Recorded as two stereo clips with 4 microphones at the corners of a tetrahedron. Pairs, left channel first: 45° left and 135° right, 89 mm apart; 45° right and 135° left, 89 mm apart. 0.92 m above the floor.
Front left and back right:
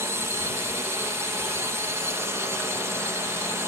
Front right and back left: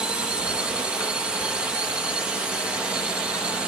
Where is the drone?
155° right.